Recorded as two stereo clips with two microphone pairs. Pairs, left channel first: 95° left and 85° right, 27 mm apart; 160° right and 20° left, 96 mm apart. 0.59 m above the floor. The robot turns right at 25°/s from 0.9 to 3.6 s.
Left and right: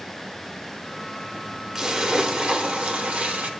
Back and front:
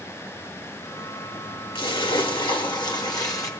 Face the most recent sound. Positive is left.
turn(degrees=-110)